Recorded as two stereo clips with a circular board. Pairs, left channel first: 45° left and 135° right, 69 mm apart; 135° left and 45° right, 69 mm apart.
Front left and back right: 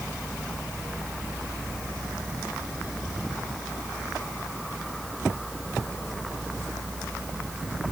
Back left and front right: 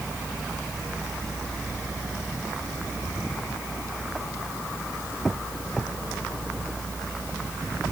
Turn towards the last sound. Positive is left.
No sound to turn to.